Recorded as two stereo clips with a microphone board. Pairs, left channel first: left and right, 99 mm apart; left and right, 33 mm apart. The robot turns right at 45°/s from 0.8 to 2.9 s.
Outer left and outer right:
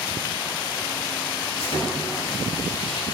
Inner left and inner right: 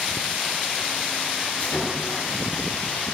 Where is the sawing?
70° left, 9 m; by 3.0 s 125° left, 9 m.